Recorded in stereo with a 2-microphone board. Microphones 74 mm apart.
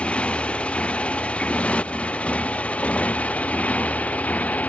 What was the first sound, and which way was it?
A motorcycle, 15° left (ahead or behind).